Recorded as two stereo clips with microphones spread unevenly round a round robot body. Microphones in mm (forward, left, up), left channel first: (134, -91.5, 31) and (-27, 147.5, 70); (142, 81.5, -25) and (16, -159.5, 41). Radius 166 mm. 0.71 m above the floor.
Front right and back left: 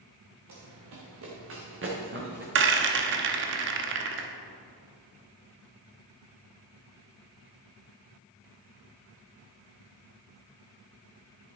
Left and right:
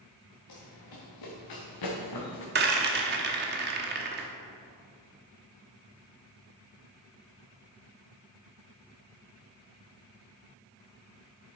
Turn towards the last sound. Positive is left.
turn(degrees=180)